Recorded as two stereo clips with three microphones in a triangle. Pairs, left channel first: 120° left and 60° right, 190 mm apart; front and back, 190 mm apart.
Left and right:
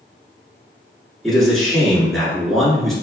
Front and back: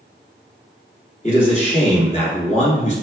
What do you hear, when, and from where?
1.2 s a man speaking: 30° left, 1.4 m